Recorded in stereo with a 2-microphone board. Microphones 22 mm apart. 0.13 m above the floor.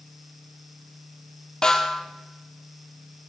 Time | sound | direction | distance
1.6 | a snare drum | 30° left (ahead or behind) | 2 m